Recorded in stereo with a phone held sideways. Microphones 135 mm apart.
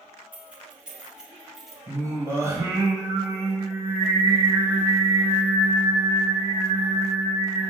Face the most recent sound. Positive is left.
turn(degrees=-20)  # may be behind; listen again after turning